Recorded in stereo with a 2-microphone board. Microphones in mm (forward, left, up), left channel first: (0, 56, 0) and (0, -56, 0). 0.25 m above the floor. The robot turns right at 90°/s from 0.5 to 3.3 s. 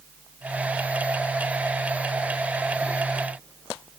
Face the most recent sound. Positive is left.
No sound to turn to.